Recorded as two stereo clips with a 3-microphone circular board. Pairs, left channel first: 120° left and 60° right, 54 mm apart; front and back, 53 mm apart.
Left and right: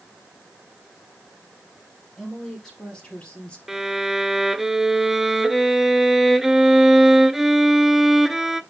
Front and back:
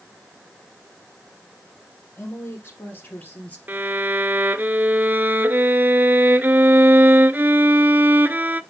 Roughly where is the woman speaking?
Ahead left.